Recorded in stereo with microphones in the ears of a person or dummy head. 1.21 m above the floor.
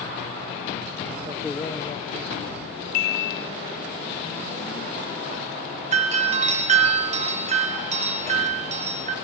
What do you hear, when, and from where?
1.3 s a man speaking: 20° right (ahead or behind), 0.7 m; by 2.7 s 65° left (ahead or behind), 2 m
2.9 s a chime: 55° left (ahead or behind), 1.0 m
5.9 s a doorbell: 40° right (ahead or behind), 1.6 m